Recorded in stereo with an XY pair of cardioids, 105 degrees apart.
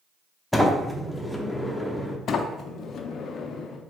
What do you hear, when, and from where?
0.5 s a sliding door: 5° left, 0.7 m
2.3 s a sliding door: 60° left, 0.5 m